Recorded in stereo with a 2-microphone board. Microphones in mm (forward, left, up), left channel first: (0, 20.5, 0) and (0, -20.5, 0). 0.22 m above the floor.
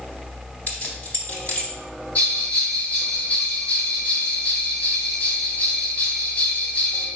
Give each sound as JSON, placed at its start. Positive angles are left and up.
{"t": 0.7, "sound": "keys jangling", "side_deg": 45, "distance_m": 1.0}
{"t": 2.1, "sound": "a bell", "side_deg": 35, "distance_m": 1.4}